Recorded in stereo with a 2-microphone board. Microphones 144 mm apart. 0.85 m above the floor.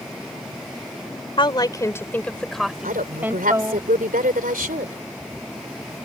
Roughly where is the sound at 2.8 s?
Right.